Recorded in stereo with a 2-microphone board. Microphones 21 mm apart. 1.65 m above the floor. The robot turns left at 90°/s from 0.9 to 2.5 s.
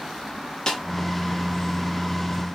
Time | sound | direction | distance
0.7 | a snare drum | 35° left (ahead or behind) | 1.0 m